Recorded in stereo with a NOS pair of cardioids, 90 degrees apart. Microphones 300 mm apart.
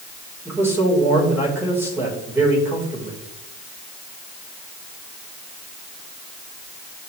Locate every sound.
0.5 s a man speaking: 10° right, 5 m